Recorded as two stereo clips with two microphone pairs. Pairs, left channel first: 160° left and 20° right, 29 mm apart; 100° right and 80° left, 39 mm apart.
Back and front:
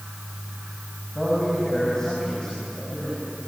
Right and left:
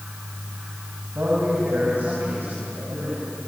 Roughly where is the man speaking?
Left.